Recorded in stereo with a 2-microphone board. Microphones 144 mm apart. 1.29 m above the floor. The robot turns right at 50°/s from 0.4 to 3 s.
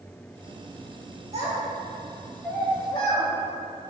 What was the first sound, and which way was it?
A child speaking, 45° right (ahead or behind).